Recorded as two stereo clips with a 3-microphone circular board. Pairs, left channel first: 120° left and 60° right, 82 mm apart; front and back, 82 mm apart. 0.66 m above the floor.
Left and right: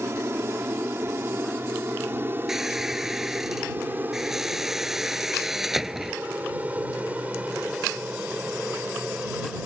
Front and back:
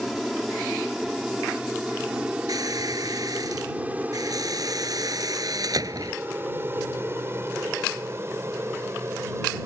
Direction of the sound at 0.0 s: 90° right.